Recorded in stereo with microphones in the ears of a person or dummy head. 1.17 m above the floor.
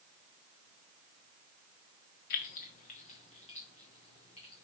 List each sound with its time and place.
2.3 s keys jangling: 40° left (ahead or behind), 0.7 m; by 4.7 s 25° left (ahead or behind), 2.5 m